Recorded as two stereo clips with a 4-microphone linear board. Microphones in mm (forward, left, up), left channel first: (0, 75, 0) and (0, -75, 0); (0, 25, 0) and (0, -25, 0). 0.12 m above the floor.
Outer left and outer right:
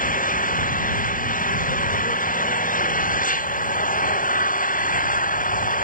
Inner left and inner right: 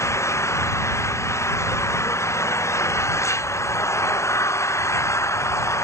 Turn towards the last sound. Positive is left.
turn(degrees=65)  # may be behind; listen again after turning